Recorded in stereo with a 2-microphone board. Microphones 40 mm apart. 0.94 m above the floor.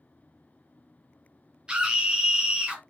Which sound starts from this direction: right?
A scream, at 1.7 s.